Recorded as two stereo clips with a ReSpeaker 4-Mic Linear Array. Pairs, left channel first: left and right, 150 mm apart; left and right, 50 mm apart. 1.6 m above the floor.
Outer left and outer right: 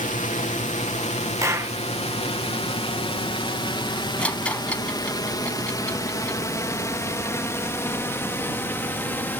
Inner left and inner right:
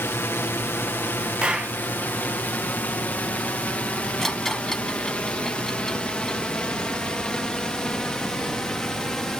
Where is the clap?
20° right (ahead or behind).